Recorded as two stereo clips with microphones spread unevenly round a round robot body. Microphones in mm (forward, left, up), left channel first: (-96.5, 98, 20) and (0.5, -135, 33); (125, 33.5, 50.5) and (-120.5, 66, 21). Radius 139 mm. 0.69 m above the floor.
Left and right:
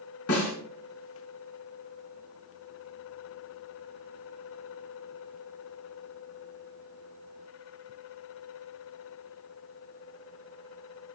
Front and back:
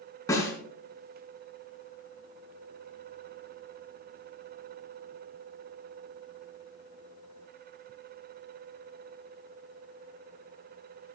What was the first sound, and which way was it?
A snare drum, 70° left.